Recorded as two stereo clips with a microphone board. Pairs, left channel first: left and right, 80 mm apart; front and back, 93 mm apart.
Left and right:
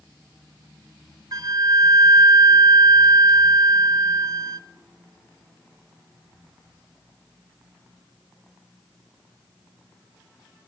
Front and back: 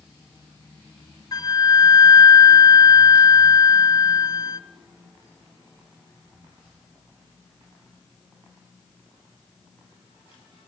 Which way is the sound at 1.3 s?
50° right.